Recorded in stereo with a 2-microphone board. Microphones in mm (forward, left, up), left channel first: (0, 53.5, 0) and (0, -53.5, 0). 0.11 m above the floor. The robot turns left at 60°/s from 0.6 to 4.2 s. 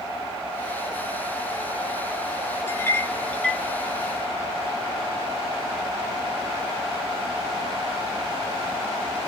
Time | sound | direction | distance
2.7 | a clink | 20° left (ahead or behind) | 0.9 m